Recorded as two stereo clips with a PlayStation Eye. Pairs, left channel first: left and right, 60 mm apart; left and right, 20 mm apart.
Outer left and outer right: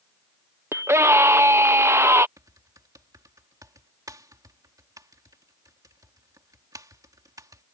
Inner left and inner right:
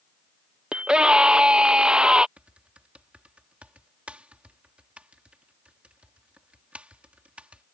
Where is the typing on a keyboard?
85° right.